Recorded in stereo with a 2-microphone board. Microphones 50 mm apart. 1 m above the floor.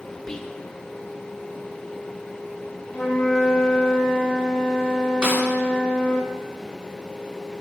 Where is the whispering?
10° left (ahead or behind), 0.7 m.